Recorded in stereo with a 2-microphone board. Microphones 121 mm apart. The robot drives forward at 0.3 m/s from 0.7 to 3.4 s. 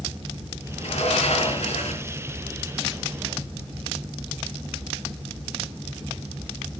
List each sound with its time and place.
0.8 s a sliding door: 70° left (ahead or behind), 4 m; by 2.1 s 75° left (ahead or behind), 4 m